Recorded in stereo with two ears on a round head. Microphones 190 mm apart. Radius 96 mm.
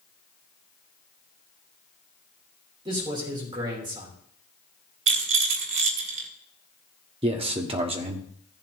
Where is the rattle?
65° right (ahead or behind), 1.4 m.